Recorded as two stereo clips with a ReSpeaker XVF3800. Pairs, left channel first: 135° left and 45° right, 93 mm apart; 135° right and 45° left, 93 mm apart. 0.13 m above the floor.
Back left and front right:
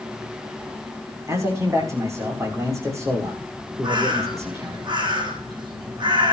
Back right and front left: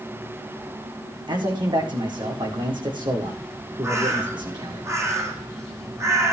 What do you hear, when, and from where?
1.3 s a man speaking: 15° left, 7.5 m
3.8 s a bird: 10° right, 5.5 m